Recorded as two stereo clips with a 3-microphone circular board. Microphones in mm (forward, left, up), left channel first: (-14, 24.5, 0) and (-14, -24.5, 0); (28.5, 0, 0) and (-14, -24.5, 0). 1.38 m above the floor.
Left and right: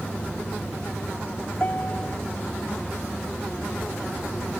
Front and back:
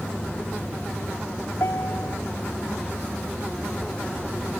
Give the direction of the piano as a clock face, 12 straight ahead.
11 o'clock.